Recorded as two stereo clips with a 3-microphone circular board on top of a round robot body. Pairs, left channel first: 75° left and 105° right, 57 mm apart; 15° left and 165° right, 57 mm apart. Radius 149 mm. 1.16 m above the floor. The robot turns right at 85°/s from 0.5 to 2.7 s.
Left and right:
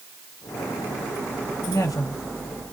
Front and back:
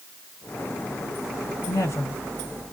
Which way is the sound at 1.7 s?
35° left.